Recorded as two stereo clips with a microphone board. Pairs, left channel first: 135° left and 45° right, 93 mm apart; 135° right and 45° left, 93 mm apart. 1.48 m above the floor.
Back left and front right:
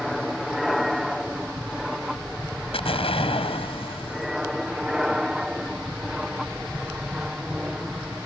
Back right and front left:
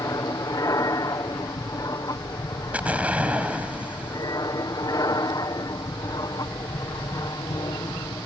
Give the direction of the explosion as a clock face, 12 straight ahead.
8 o'clock.